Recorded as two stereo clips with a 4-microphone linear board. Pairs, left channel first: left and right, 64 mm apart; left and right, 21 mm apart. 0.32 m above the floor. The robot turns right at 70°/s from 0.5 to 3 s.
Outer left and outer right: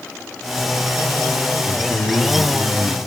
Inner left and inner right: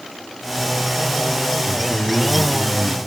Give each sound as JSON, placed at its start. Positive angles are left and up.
{"t": 1.6, "sound": "a man speaking", "azimuth_deg": 90, "distance_m": 2.5}